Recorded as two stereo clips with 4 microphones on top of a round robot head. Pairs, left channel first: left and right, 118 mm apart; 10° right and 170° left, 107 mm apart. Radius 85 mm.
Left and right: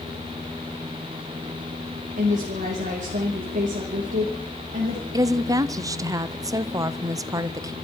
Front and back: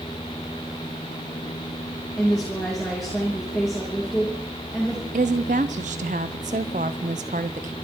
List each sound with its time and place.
2.2 s a woman speaking: 100° right, 3 m
5.1 s a woman speaking: 150° right, 0.6 m